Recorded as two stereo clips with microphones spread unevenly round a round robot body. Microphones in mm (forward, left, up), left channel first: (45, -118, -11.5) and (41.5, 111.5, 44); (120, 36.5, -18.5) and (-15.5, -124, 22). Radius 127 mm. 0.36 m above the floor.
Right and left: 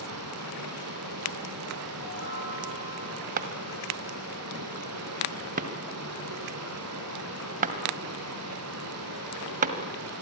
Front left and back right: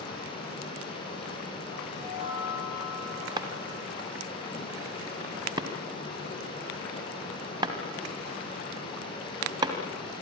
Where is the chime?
70° right, 7.5 m.